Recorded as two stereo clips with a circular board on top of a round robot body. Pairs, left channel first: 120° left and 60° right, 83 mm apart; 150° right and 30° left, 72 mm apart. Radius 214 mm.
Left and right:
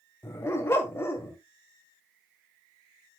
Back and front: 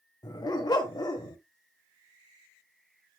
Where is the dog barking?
Straight behind, 1.6 m.